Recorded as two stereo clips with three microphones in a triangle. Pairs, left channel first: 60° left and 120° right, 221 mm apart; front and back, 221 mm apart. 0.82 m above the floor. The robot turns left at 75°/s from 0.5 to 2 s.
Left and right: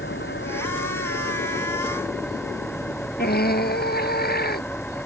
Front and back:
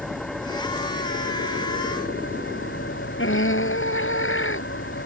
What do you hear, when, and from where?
0.0 s an engine running: 85° left; by 5.0 s 25° right
3.2 s a scream: 20° left